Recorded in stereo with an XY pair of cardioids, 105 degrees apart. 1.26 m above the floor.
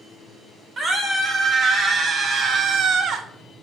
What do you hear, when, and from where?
0.8 s a scream: 40° right, 2 m; by 3.2 s 70° right, 0.7 m